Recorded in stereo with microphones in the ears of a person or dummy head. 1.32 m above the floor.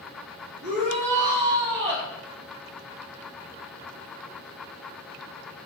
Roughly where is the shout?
Right.